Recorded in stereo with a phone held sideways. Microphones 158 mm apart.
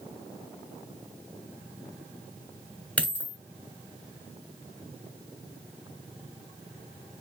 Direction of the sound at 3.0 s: 10° left (ahead or behind).